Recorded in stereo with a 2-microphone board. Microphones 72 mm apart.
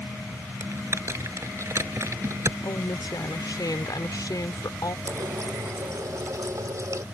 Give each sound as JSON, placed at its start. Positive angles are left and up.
{"t": 0.6, "sound": "typing on a keyboard", "side_deg": -40}
{"t": 2.6, "sound": "a woman speaking", "side_deg": 65}
{"t": 5.0, "sound": "a running tap", "side_deg": -45}